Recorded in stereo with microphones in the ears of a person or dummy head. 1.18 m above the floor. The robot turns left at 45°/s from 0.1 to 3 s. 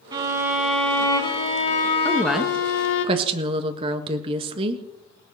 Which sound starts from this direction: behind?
A violin, at 0.1 s.